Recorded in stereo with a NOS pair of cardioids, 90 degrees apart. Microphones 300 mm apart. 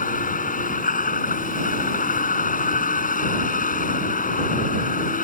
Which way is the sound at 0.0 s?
25° left.